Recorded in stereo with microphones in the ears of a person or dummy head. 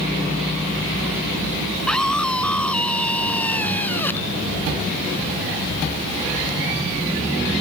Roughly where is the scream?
Centre.